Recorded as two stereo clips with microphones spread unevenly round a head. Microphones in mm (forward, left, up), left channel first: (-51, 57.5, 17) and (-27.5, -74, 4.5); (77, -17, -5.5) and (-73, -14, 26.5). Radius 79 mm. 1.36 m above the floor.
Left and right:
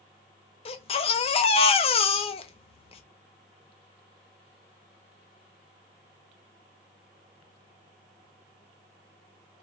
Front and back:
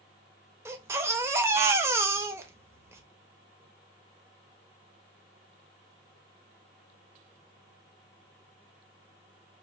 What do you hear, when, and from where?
0.7 s a baby crying: 120° left, 0.6 m